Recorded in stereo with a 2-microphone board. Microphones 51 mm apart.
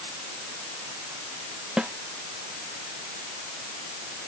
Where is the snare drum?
20° right (ahead or behind).